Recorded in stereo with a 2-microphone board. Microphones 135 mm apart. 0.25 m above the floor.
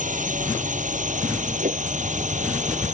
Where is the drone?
70° right (ahead or behind); by 2.9 s 65° right (ahead or behind).